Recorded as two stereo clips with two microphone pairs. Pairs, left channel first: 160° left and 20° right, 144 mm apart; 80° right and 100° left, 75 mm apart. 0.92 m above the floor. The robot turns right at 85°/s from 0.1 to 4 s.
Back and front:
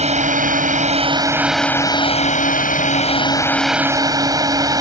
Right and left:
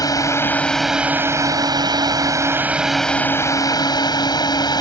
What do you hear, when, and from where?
0.0 s a drone: 55° right; by 4.8 s 80° right